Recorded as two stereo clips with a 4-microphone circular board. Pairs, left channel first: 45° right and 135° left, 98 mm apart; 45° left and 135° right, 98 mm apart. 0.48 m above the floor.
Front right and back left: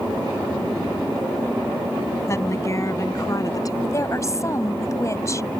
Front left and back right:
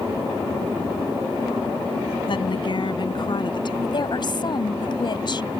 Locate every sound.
2.3 s a woman speaking: 15° left; by 3.7 s 5° left
3.8 s a woman speaking: 10° left